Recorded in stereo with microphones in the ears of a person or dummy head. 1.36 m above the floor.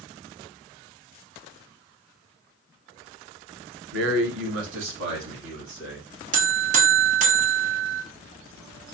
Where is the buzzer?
35° right (ahead or behind), 0.7 m.